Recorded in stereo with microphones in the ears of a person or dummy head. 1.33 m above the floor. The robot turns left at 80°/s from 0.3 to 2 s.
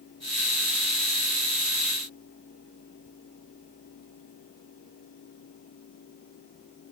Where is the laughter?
No laughter in this recording.